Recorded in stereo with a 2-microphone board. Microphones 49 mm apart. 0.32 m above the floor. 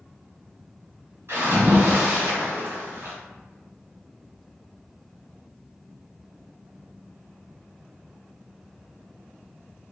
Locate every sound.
1.3 s a splash: 60° right (ahead or behind), 1.7 m